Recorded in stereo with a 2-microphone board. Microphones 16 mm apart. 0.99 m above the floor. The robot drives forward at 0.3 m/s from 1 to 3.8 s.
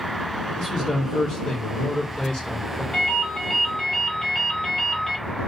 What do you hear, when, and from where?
0.6 s a man speaking: 40° left (ahead or behind), 1.4 m; by 2.8 s 50° left (ahead or behind), 1.2 m
2.9 s a ringtone: 30° left (ahead or behind), 1.0 m; by 5.2 s 25° left (ahead or behind), 1.3 m